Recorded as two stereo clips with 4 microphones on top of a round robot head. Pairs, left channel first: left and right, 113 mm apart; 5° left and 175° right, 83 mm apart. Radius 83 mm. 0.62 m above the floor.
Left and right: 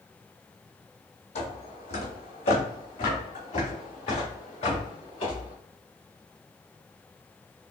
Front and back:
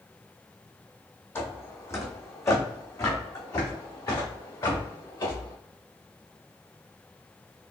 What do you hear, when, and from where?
1.4 s footsteps: 65° left, 1.4 m; by 5.5 s 50° left, 3.5 m